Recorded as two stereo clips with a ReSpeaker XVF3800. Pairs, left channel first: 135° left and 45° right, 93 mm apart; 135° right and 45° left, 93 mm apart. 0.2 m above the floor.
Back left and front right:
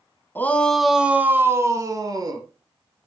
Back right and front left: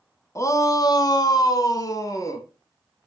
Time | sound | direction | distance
0.3 | a shout | 170° right | 1.3 m